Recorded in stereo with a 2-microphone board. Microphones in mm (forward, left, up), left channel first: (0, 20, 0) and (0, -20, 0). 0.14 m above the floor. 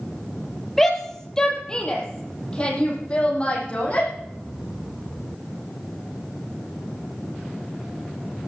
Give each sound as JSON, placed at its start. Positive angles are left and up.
{"t": 0.8, "sound": "a shout", "side_deg": 10, "distance_m": 4.0}